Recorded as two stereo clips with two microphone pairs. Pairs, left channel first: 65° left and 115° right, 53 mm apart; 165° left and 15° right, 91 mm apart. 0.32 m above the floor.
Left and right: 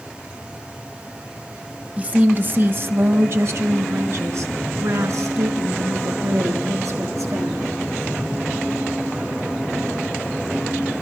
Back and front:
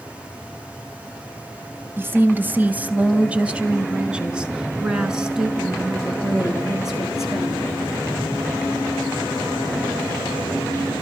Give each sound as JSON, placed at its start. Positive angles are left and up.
{"t": 2.0, "sound": "a woman speaking", "azimuth_deg": -70, "distance_m": 1.8}